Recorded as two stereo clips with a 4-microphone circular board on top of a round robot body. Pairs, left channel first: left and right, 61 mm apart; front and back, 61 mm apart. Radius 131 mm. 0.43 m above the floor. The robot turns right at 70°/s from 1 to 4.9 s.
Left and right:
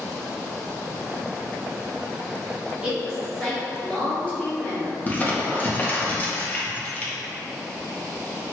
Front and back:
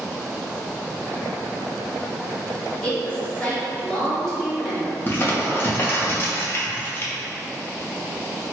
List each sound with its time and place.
2.8 s a woman speaking: 40° right, 1.4 m; by 5.7 s 105° left, 1.4 m
5.1 s crumpling: 35° left, 0.8 m